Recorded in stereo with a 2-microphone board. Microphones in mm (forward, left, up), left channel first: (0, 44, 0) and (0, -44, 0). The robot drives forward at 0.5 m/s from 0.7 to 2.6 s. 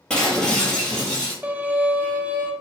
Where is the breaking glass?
10° left (ahead or behind), 1.7 m; by 1.3 s 5° left (ahead or behind), 2 m.